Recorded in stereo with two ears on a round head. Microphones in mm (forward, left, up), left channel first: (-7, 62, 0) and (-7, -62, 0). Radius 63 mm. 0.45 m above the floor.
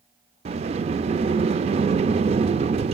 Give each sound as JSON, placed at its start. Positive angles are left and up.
{"t": 0.5, "sound": "a sliding door", "side_deg": -45, "distance_m": 0.5}